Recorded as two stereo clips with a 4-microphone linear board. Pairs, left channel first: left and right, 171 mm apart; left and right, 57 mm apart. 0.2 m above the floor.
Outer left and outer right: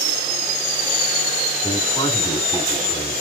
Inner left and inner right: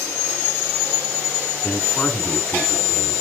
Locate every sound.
1.6 s a man speaking: 20° left (ahead or behind), 3 m